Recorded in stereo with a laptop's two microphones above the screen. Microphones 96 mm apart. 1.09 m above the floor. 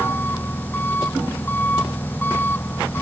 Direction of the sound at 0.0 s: 20° left (ahead or behind).